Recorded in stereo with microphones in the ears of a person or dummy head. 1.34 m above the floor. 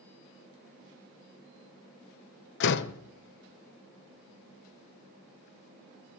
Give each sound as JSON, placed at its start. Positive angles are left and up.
{"t": 2.6, "sound": "a door slam", "side_deg": 70, "distance_m": 0.7}